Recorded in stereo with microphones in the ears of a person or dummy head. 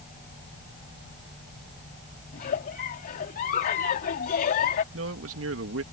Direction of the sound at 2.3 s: 45° left (ahead or behind).